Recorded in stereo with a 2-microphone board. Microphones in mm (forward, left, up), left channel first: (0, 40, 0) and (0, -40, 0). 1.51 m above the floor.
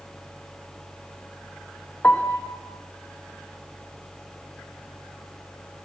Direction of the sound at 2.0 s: 20° left (ahead or behind).